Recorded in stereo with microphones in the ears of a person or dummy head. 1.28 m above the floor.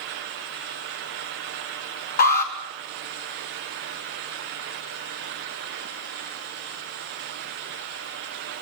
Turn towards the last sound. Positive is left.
turn(degrees=50)  # may be behind; listen again after turning